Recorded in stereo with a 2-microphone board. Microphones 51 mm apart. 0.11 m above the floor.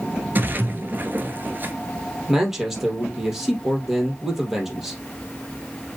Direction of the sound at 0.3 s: 40° right (ahead or behind).